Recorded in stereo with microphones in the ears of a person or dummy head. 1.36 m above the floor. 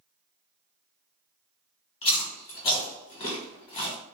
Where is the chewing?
30° left (ahead or behind), 1.2 m.